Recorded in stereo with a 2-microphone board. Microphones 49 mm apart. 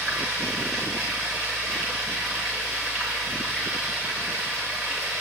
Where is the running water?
10° right (ahead or behind), 7 m.